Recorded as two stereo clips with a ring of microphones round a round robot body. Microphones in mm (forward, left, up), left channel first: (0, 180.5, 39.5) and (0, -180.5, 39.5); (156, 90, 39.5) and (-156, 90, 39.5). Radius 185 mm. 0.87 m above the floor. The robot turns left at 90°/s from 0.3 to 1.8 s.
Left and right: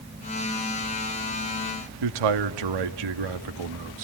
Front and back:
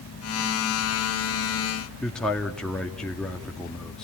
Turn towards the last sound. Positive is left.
turn(degrees=-90)